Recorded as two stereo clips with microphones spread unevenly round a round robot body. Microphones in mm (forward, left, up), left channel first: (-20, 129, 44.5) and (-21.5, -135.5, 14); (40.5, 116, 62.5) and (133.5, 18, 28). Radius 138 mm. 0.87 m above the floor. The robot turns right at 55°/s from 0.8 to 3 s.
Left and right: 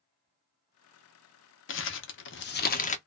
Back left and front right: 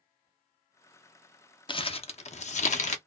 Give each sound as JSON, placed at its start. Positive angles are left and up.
{"t": 1.7, "sound": "crumpling", "azimuth_deg": 75, "distance_m": 0.6}